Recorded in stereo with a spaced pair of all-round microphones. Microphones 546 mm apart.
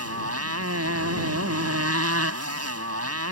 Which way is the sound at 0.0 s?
25° right (ahead or behind).